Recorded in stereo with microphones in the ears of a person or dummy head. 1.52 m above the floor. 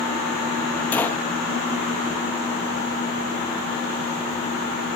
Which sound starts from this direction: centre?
A gunshot, at 0.9 s.